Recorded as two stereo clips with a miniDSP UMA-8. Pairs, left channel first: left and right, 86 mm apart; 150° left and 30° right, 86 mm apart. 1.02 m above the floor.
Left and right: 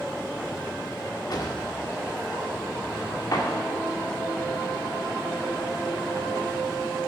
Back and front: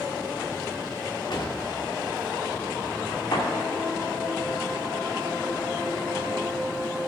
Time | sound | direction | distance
1.3 | a drawer | 130° left | 1.6 m